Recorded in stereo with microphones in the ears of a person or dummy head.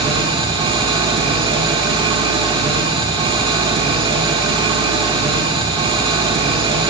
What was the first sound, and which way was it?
An engine running, 30° right (ahead or behind).